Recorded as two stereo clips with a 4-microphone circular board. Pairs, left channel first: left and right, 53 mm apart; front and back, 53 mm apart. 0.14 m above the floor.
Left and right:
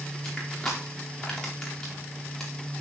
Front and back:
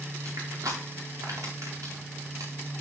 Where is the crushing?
165° left, 4 m.